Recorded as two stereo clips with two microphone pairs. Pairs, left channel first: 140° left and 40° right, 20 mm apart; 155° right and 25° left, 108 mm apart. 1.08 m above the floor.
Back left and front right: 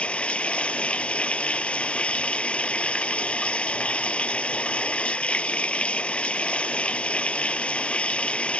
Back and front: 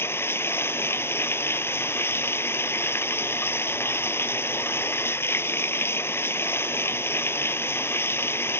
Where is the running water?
135° left.